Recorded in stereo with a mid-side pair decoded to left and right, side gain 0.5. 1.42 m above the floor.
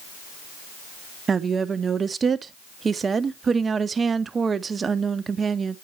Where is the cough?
I don't hear a cough.